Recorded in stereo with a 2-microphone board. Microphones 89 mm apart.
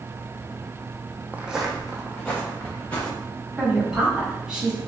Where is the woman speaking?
10° right (ahead or behind), 2 m.